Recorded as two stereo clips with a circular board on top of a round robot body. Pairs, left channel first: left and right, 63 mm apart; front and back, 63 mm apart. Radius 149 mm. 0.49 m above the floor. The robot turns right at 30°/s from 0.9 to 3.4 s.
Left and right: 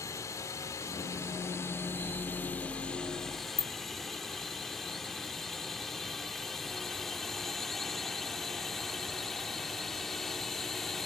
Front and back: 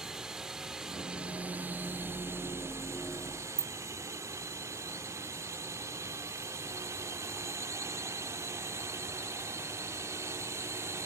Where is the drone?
100° left; by 11.1 s 175° left.